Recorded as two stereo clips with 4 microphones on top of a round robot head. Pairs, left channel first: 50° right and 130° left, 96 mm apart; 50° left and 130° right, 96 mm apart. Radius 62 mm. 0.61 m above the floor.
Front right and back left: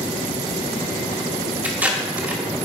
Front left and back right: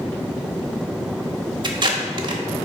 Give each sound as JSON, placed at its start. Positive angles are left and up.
{"t": 1.6, "sound": "tape being pulled", "azimuth_deg": -155, "distance_m": 1.2}